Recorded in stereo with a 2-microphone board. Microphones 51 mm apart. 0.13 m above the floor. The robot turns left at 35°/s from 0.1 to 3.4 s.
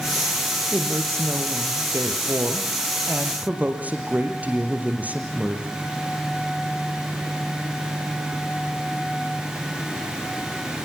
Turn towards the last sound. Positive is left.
turn(degrees=-145)